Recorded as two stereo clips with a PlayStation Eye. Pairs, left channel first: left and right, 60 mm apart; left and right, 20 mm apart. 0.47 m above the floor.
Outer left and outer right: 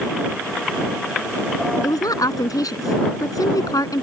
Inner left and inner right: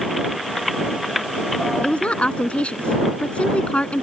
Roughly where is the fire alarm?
I don't hear a fire alarm.